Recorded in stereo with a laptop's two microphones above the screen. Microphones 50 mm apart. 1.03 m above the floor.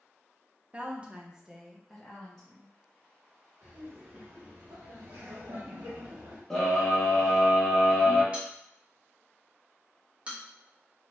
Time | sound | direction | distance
0.7 | a woman speaking | 25° right (ahead or behind) | 0.7 m
3.6 | laughter | 60° right (ahead or behind) | 1.9 m
6.5 | a scream | 10° left (ahead or behind) | 1.0 m
8.3 | a bell | 25° right (ahead or behind) | 1.1 m